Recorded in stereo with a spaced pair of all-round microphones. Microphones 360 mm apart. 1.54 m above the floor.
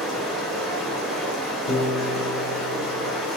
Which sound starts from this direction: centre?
Running water, at 0.0 s.